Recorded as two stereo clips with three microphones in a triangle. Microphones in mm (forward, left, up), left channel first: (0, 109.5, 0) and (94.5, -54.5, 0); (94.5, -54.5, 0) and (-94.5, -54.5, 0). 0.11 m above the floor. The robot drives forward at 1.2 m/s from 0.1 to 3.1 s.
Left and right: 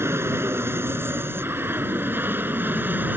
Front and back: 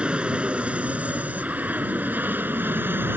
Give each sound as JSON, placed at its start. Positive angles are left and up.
{"t": 0.0, "sound": "an aircraft", "azimuth_deg": -105}